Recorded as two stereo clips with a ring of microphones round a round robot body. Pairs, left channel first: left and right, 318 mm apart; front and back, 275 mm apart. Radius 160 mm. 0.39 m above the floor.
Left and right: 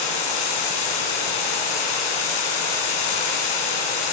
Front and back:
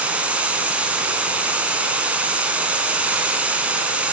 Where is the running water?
95° left, 3.5 m.